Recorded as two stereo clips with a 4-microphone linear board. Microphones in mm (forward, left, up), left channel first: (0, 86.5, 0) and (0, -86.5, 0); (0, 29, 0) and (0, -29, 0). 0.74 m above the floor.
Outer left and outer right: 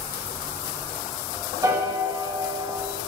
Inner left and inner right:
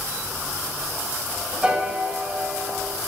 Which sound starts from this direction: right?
A piano, at 1.6 s.